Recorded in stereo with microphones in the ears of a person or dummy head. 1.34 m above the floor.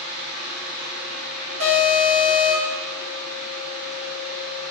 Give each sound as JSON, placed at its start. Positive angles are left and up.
{"t": 0.0, "sound": "a fan", "side_deg": -60, "distance_m": 1.4}
{"t": 1.6, "sound": "an alarm", "side_deg": -70, "distance_m": 1.9}